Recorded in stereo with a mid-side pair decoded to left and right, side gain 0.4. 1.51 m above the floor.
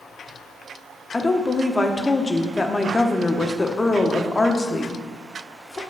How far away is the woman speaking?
About 0.9 m.